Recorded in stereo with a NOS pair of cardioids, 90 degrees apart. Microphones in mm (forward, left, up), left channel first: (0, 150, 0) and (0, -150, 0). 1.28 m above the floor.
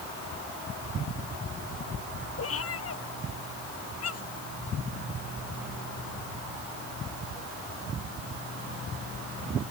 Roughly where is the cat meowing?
Ahead left.